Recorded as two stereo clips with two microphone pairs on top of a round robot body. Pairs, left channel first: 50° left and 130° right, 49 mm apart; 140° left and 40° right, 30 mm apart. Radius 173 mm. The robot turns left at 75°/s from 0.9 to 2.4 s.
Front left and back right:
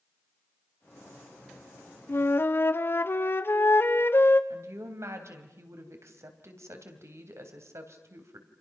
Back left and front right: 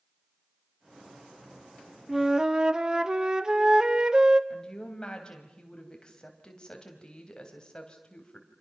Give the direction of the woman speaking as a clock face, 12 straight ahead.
5 o'clock.